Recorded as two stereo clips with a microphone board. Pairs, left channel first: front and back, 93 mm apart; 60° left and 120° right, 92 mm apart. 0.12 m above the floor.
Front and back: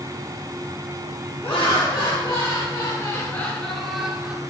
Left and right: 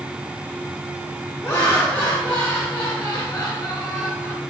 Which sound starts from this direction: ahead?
Laughter, at 1.4 s.